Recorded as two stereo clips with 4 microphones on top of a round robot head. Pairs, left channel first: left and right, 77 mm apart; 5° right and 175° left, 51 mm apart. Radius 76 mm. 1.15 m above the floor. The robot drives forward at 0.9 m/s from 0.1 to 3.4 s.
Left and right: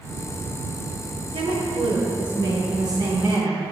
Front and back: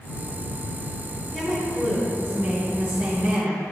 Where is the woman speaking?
95° right, 2.5 m; by 3.6 s 130° right, 3.5 m.